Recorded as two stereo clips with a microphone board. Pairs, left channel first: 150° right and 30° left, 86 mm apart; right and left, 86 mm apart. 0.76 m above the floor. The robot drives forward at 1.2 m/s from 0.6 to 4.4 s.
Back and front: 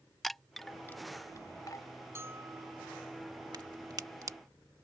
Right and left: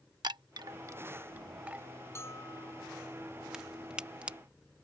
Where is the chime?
120° left; by 1.9 s 165° left.